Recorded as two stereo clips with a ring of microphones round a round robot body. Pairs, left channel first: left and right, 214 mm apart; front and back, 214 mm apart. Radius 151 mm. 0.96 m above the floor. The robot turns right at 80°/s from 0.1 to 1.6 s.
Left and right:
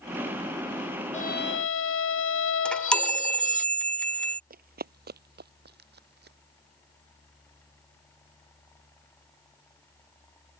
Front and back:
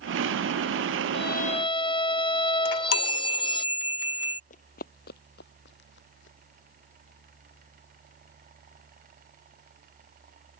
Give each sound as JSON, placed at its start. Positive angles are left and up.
{"t": 1.1, "sound": "a violin", "azimuth_deg": 30}
{"t": 2.6, "sound": "a chime", "azimuth_deg": 5}
{"t": 4.5, "sound": "running footsteps", "azimuth_deg": -55}